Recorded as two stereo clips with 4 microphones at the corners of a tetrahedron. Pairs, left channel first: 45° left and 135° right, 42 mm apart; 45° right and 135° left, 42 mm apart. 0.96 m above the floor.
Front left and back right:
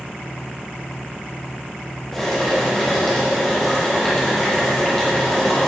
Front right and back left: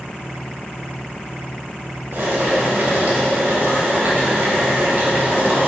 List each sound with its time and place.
2.1 s boiling: 130° left, 2 m